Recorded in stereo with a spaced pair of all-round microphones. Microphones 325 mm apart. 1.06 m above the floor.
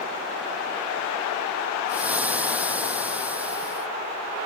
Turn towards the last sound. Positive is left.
turn(degrees=-5)  # may be behind; listen again after turning